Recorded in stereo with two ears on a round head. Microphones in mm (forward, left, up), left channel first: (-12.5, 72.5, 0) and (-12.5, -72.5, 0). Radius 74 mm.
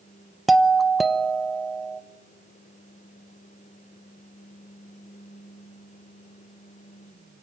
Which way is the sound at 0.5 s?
Centre (ahead or behind).